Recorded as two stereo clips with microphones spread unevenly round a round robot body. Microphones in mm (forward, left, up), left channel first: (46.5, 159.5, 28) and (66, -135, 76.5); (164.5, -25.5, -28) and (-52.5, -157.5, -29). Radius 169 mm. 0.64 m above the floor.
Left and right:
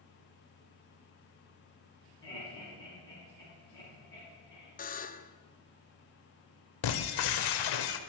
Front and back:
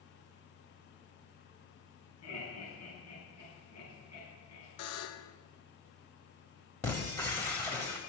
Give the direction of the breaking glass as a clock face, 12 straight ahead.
8 o'clock.